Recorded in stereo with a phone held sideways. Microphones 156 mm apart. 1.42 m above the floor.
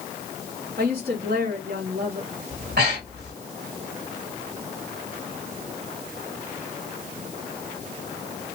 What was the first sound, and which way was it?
A woman speaking, 90° right.